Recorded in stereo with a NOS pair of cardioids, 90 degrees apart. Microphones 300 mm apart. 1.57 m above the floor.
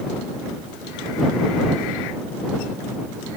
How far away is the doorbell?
I don't hear a doorbell.